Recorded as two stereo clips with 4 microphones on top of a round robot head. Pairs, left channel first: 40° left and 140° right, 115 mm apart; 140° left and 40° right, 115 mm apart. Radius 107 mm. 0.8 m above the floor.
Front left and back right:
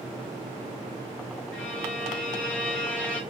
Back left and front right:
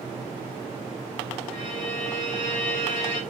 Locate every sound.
1.5 s a violin: 120° left, 1.3 m